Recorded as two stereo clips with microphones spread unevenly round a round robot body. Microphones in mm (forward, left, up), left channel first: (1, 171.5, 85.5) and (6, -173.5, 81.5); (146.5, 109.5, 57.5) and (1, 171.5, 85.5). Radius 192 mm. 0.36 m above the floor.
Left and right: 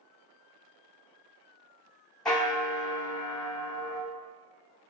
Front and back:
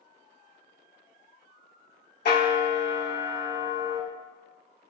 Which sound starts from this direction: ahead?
A bell, at 2.2 s.